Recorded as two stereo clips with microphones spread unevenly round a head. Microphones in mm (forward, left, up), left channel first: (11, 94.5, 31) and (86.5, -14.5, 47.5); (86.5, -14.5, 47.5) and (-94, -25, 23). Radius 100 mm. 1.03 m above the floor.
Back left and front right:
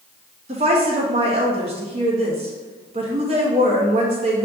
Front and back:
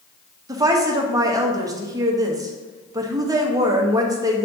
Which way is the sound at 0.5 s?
110° right.